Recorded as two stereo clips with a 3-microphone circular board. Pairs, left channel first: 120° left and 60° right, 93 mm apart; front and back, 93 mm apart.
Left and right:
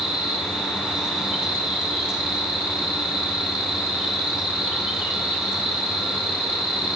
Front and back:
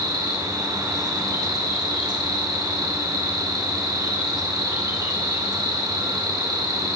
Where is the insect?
140° right, 5 m.